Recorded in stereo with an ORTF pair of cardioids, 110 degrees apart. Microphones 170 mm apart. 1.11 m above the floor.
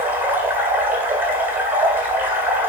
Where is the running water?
10° right, 1.8 m.